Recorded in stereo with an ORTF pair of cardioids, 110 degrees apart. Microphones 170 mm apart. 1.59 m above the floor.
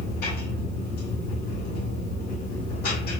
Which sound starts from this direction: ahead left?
A machine running, at 0.0 s.